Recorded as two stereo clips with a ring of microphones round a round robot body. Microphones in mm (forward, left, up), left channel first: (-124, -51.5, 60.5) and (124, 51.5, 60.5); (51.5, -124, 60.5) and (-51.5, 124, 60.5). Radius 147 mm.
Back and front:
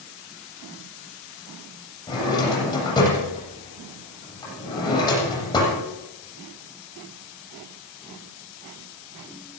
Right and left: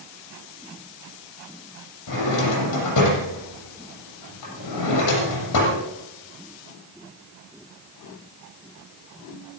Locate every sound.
2.1 s a drawer: 80° right, 7.5 m